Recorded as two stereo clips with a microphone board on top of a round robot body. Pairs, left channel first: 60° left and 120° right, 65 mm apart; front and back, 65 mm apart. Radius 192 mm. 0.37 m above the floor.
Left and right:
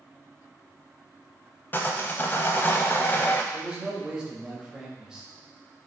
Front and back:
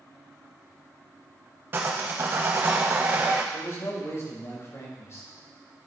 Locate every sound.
1.7 s sawing: 120° left, 0.5 m
3.5 s a man speaking: 40° right, 2.5 m